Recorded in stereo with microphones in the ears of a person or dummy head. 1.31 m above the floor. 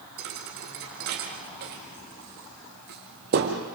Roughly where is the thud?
Right.